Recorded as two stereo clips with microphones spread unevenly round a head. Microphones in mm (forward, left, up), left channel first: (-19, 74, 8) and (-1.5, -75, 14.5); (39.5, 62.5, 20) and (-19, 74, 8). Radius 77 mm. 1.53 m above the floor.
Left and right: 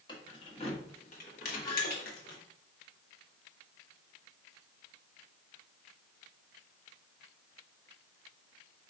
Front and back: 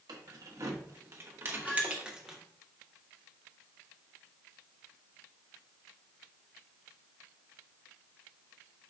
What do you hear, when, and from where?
0.1 s keys jangling: 160° left, 1.4 m; by 2.4 s 80° left, 1.3 m
1.6 s a squeak: 35° left, 1.3 m